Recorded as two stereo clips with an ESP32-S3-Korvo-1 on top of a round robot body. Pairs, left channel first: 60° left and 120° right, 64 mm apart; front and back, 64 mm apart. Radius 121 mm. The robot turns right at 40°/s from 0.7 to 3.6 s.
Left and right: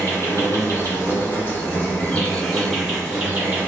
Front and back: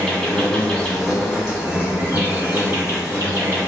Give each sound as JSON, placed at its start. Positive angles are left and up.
{"t": 0.0, "sound": "an insect", "azimuth_deg": 75, "distance_m": 1.9}